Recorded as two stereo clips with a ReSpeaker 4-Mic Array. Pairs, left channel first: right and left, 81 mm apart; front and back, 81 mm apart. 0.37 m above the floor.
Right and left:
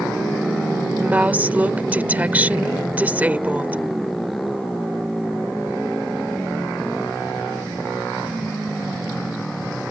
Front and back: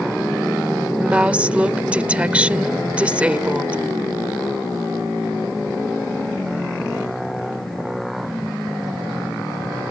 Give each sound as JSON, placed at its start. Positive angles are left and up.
{"t": 1.0, "sound": "a woman speaking", "azimuth_deg": 130}